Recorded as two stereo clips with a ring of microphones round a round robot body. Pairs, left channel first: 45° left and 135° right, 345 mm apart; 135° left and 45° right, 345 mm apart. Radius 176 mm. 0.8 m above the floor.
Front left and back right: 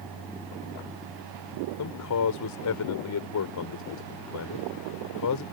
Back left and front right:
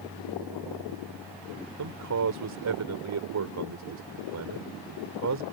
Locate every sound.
1.8 s a man speaking: straight ahead